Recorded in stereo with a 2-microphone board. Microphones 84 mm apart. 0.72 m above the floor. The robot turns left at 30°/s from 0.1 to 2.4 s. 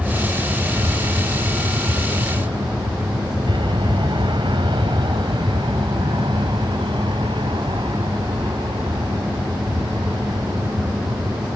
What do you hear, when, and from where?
0.0 s an aircraft: 10° right (ahead or behind); by 11.6 s 75° right (ahead or behind)